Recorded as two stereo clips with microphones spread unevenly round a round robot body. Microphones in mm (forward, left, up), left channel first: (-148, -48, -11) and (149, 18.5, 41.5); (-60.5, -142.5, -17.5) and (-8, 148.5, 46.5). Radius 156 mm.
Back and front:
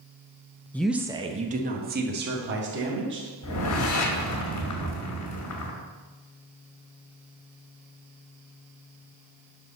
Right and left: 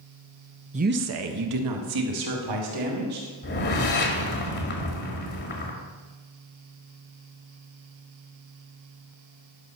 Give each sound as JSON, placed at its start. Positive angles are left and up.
{"t": 0.7, "sound": "a woman speaking", "azimuth_deg": 145, "distance_m": 0.7}
{"t": 3.4, "sound": "a whoosh", "azimuth_deg": -145, "distance_m": 1.8}